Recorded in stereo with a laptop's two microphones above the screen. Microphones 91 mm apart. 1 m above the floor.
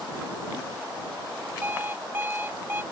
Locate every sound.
1.6 s an alarm clock: 25° right (ahead or behind)